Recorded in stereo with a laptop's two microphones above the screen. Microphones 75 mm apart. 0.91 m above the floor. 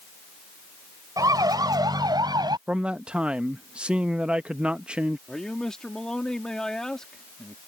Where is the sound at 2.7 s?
15° right (ahead or behind).